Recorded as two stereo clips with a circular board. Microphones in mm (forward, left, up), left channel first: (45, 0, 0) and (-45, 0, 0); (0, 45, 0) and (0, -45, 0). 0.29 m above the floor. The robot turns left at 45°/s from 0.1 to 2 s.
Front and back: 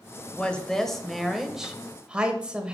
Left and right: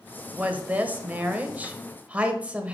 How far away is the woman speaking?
About 1.0 m.